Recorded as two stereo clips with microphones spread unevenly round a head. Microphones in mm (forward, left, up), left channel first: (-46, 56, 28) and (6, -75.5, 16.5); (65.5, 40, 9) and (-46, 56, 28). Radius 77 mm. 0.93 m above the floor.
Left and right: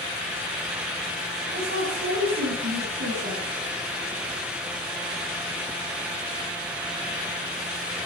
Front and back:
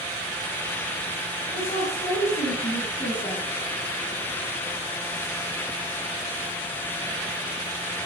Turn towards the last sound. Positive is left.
turn(degrees=-65)